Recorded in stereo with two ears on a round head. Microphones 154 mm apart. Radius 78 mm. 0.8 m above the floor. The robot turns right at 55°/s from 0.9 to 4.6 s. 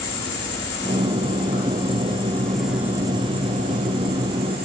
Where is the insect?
85° left, 2.5 m; by 4.7 s 70° right, 2.5 m.